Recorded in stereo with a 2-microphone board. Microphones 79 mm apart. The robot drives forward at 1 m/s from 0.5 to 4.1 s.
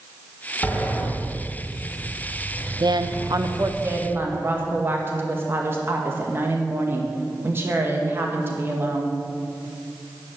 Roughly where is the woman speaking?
Right.